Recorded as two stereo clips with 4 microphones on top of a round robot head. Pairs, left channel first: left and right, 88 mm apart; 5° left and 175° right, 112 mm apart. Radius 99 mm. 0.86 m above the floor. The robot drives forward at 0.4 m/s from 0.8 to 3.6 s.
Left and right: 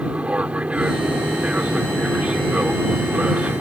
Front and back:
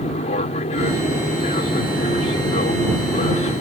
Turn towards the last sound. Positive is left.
turn(degrees=-15)